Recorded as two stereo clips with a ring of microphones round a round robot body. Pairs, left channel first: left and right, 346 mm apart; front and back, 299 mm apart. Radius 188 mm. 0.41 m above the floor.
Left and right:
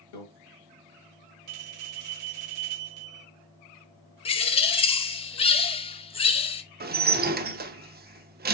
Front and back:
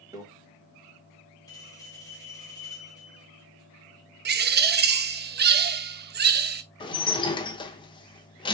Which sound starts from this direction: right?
A bell, at 1.5 s.